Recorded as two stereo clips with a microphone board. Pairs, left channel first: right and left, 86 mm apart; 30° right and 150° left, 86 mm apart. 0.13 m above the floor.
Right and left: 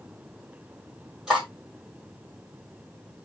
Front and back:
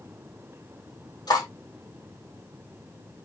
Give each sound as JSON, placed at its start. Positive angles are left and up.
{"t": 1.3, "sound": "cutlery clinking", "azimuth_deg": 5, "distance_m": 2.5}